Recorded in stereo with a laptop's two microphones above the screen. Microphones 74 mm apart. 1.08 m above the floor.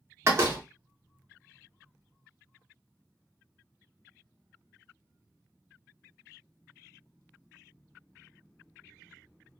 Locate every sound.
0.2 s a door slam: 35° right (ahead or behind), 0.8 m